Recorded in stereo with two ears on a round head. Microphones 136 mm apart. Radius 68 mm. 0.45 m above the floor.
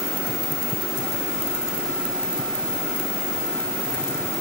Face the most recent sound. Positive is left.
No sound to turn to.